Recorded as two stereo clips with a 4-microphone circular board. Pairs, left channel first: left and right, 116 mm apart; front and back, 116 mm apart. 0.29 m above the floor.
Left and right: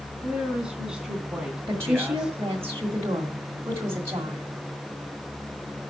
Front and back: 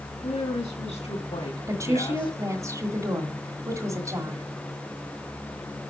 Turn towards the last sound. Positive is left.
turn(degrees=-140)